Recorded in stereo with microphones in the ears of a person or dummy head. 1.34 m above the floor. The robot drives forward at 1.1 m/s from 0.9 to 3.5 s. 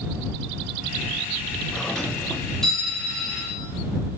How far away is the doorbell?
About 3 m.